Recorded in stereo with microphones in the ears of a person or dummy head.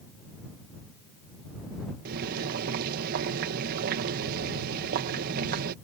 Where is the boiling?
50° right (ahead or behind).